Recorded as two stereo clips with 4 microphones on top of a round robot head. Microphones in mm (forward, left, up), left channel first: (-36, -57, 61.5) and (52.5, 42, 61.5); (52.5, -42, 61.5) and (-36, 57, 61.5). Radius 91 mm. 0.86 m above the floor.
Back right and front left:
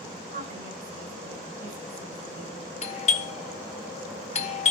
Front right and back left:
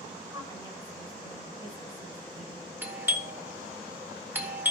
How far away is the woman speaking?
About 9.5 m.